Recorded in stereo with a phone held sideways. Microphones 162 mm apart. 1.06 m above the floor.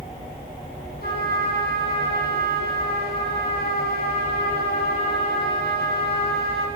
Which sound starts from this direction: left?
A trumpet, at 1.0 s.